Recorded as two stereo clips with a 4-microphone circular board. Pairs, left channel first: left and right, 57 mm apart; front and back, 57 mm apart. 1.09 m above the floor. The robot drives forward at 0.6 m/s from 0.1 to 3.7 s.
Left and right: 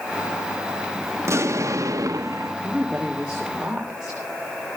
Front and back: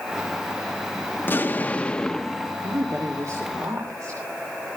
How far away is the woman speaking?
About 2.5 m.